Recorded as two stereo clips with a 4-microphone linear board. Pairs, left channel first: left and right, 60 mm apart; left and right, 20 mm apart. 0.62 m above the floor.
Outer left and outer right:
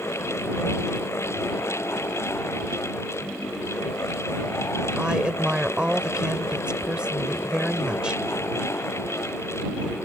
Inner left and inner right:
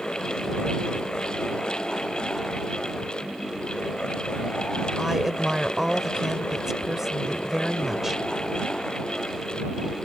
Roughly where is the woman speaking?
Centre.